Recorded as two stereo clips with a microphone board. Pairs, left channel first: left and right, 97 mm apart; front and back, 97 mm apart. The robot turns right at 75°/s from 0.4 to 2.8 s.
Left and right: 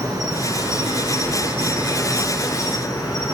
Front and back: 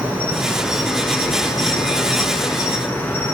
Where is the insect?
120° right, 1.9 m; by 3.3 s 60° left, 1.9 m.